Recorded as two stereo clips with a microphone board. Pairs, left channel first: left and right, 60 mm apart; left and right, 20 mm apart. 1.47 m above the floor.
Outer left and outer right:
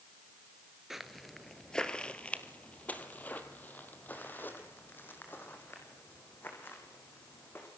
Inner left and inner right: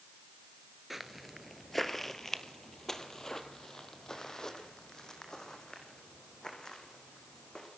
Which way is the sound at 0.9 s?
5° right (ahead or behind).